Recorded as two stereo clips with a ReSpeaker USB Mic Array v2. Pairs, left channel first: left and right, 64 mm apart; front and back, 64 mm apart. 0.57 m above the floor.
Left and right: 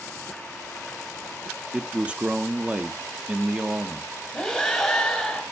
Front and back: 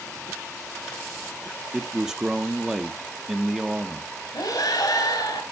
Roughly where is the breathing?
Ahead.